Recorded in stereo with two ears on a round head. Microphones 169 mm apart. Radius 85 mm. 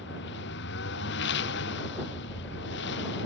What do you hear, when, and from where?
0.0 s a lawn mower: 65° left (ahead or behind)